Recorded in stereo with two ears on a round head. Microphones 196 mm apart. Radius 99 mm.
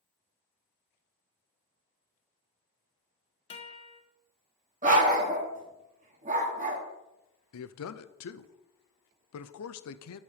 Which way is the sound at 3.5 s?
25° left (ahead or behind).